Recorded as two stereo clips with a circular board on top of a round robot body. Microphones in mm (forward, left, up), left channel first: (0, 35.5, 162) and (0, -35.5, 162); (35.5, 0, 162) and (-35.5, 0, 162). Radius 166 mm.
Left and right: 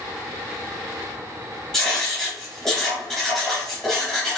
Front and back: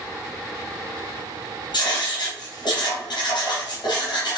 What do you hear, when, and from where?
1.7 s writing: 10° left, 3 m